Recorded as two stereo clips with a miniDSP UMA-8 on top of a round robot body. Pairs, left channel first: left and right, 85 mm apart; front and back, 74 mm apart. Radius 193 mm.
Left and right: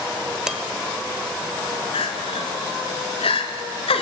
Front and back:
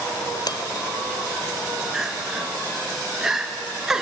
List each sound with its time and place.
0.5 s dishes clattering: 5° right, 1.4 m
1.9 s crying: 95° left, 1.6 m